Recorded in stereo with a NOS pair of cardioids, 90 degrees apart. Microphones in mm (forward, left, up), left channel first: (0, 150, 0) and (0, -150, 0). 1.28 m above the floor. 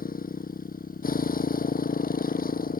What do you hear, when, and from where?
0.0 s a motorcycle: 30° left